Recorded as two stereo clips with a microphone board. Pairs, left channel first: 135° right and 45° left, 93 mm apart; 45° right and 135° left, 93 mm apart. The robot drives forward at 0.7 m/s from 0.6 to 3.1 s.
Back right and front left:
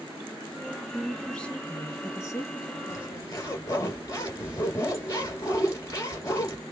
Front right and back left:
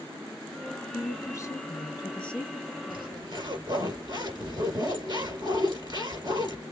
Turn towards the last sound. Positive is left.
turn(degrees=170)